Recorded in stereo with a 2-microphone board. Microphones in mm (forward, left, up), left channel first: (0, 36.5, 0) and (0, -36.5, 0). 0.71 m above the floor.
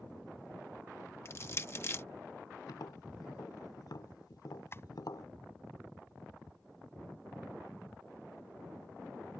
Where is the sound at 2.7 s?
70° left (ahead or behind).